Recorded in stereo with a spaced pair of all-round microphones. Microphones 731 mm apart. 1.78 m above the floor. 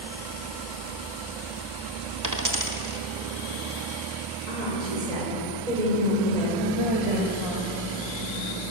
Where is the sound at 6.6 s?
45° right (ahead or behind), 3 m.